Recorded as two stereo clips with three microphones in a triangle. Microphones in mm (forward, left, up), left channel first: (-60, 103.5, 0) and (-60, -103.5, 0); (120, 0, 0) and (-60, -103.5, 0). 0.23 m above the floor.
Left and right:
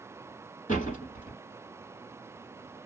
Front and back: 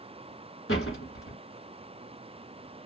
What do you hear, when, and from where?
0.7 s a door slam: 40° left, 1.9 m